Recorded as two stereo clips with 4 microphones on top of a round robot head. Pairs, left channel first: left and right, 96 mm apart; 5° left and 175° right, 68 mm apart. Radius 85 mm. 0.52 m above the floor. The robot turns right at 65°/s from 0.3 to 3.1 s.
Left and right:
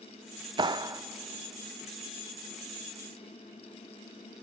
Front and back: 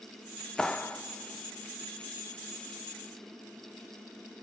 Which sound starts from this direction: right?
A clap, at 0.6 s.